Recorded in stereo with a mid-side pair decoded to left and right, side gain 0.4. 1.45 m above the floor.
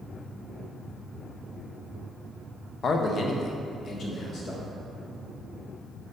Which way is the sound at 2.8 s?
55° left.